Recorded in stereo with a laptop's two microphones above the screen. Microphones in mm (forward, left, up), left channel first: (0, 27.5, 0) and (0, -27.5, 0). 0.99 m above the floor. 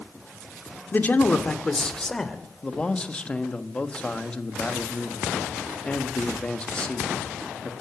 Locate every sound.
0.9 s a man speaking: 35° left (ahead or behind), 2 m; by 2.4 s 5° left (ahead or behind), 3 m
2.6 s a man speaking: 20° left (ahead or behind), 1.3 m